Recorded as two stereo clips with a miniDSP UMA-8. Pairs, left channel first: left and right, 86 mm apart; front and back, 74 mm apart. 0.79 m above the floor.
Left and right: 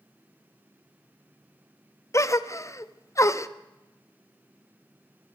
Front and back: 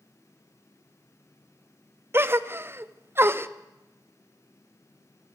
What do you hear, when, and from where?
2.1 s a gasp: 130° left, 1.0 m